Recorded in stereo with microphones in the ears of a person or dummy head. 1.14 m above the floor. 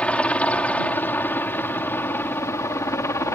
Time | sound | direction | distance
0.0 | a helicopter | 10° left (ahead or behind) | ?